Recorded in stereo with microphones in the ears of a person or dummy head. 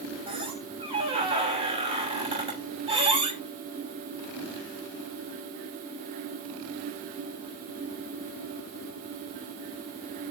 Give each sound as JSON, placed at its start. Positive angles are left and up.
{"t": 0.3, "sound": "a squeak", "side_deg": -35, "distance_m": 5.0}